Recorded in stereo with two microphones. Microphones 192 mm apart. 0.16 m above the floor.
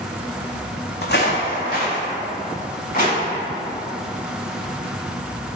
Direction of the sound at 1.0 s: 70° left (ahead or behind).